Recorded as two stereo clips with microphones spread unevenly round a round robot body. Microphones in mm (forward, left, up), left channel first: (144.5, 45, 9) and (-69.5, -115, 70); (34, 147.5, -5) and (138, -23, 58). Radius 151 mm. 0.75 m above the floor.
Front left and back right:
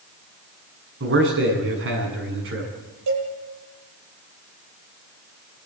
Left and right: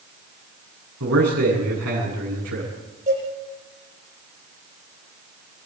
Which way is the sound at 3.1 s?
125° right.